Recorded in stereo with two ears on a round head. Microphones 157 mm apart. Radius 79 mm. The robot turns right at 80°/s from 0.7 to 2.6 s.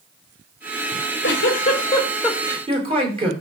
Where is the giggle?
75° left, 3.5 m; by 3.3 s 150° right, 3.5 m.